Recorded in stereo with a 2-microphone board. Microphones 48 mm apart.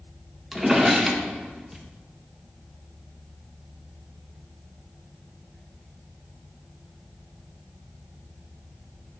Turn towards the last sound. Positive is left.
turn(degrees=-5)  # may be behind; listen again after turning